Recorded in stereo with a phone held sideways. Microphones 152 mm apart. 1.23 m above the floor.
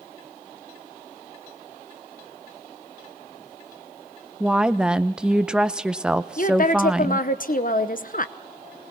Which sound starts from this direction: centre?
A woman speaking, at 4.4 s.